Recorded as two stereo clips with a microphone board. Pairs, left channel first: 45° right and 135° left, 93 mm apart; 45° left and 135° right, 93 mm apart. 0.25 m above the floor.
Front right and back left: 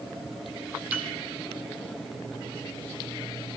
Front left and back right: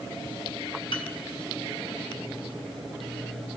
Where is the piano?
65° left, 1.3 m.